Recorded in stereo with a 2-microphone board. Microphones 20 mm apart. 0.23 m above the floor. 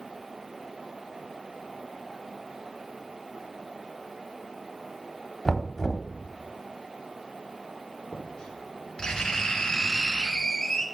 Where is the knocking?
20° left (ahead or behind), 0.8 m.